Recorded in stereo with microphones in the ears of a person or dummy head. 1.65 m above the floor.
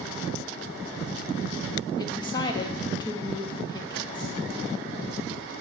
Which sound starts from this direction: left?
A woman speaking, at 2.0 s.